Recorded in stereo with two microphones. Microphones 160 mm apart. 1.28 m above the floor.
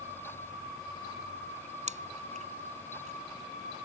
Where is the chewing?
45° right (ahead or behind).